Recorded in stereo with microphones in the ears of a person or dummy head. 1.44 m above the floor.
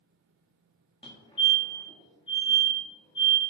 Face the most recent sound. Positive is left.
turn(degrees=35)  # may be behind; listen again after turning